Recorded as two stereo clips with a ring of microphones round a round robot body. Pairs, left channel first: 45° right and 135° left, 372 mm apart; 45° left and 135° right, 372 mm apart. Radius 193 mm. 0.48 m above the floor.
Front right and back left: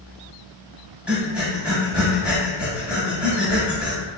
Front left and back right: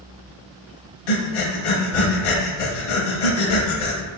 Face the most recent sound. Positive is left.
turn(degrees=50)